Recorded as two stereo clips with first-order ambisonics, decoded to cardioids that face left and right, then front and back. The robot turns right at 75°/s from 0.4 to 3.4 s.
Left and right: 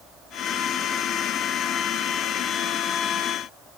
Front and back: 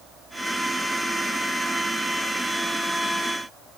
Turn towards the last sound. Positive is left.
No sound to turn to.